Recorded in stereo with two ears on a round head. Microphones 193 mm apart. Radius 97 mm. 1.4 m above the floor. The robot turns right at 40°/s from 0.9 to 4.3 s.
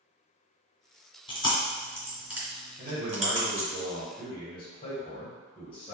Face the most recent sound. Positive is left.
turn(degrees=25)